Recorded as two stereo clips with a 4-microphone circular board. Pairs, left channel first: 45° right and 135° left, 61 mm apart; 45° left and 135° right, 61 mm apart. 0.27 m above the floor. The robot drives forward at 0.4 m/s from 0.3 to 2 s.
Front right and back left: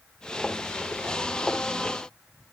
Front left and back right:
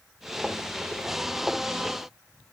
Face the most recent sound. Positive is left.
No sound to turn to.